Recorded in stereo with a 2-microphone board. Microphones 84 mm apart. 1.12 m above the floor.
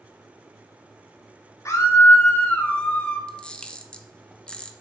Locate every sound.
1.6 s a scream: 40° left (ahead or behind), 1.9 m; by 3.2 s 10° left (ahead or behind), 2.5 m
3.3 s a camera shutter: 10° left (ahead or behind), 0.9 m